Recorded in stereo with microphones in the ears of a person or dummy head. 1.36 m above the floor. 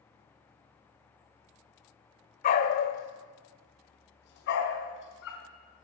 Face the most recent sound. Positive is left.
turn(degrees=65)  # may be behind; listen again after turning